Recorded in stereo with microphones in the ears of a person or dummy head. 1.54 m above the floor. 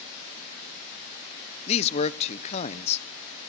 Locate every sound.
1.7 s a man speaking: 35° left (ahead or behind), 0.8 m